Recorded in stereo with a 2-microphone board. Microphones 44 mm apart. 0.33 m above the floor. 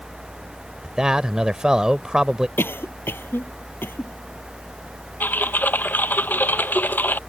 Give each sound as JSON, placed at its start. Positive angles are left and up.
{"t": 0.8, "sound": "a man speaking", "side_deg": -15}
{"t": 2.6, "sound": "a cough", "side_deg": 65}
{"t": 5.2, "sound": "typing on a keyboard", "side_deg": 45}